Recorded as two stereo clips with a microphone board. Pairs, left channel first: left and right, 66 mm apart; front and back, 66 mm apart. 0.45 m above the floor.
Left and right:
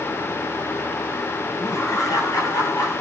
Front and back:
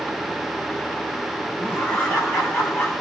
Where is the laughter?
50° left, 3.5 m; by 3.0 s 45° left, 2.5 m.